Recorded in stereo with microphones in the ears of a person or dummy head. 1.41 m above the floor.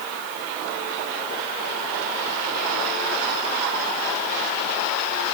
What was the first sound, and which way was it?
Only background noise.